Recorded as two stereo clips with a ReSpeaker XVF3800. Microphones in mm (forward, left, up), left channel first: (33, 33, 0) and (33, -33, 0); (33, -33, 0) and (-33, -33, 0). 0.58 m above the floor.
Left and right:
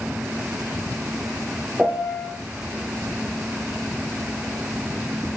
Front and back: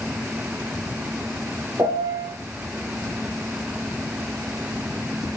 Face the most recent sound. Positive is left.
turn(degrees=-170)